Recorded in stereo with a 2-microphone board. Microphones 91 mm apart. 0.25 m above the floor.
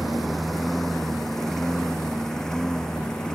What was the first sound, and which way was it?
A lawn mower, centre (ahead or behind).